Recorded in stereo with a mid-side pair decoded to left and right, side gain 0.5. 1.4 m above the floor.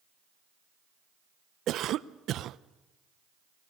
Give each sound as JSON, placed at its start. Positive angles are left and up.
{"t": 1.7, "sound": "a cough", "azimuth_deg": -60, "distance_m": 0.7}